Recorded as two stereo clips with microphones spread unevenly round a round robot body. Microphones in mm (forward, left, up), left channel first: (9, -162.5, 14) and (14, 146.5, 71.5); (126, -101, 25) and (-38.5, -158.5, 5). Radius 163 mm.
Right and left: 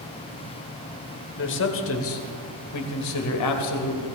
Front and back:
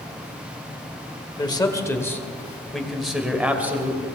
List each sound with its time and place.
1.4 s a man speaking: 50° right, 1.9 m; by 4.0 s 85° right, 2.5 m